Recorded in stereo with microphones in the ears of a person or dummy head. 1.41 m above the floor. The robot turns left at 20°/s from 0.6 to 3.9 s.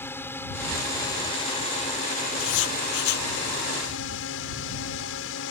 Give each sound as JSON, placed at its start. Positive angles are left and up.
{"t": 0.0, "sound": "a drone", "azimuth_deg": 165}
{"t": 2.4, "sound": "writing", "side_deg": 80}